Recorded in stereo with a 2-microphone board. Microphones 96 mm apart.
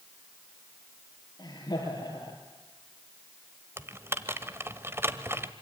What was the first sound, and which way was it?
Laughter, 40° left (ahead or behind).